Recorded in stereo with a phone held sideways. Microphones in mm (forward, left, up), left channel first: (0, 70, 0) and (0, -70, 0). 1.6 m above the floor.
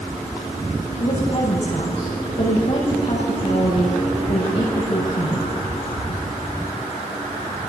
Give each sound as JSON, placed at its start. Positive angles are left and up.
{"t": 1.0, "sound": "a woman speaking", "side_deg": 50, "distance_m": 7.5}